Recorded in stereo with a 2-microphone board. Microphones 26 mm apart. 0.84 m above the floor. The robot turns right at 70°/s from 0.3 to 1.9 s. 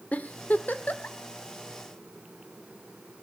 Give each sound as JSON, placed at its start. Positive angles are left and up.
{"t": 0.1, "sound": "a giggle", "side_deg": 65, "distance_m": 1.3}